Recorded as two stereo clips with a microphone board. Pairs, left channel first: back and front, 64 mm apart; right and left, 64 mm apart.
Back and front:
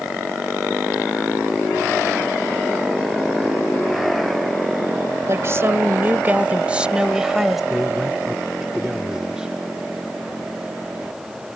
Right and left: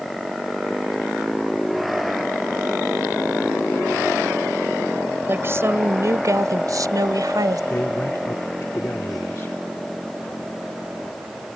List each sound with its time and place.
5.3 s a woman speaking: 40° left; by 7.6 s 85° left
7.7 s a man speaking: 70° right